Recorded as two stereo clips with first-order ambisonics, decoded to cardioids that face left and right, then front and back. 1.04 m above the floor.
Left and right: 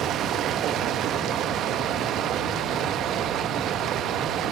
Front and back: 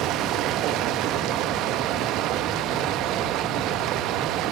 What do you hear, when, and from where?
0.0 s running water: 140° right, 0.8 m